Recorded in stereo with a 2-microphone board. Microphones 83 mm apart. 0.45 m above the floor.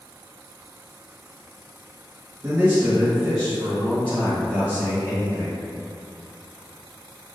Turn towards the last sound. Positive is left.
turn(degrees=40)  # may be behind; listen again after turning